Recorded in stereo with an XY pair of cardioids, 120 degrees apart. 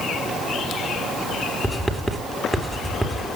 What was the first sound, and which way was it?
Writing, 5° right.